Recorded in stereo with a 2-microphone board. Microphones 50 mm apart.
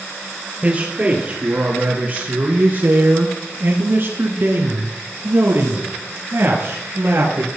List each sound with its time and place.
0.6 s a man speaking: 30° right (ahead or behind), 3 m; by 7.5 s 55° right (ahead or behind), 4 m